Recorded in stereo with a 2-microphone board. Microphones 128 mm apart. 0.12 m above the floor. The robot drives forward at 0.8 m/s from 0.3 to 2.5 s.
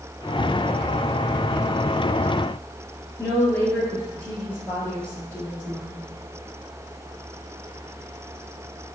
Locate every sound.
3.2 s a woman speaking: 15° left (ahead or behind), 1.9 m